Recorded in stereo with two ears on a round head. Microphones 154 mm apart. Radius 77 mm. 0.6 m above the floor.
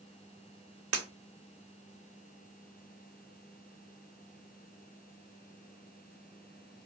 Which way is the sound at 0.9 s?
85° right.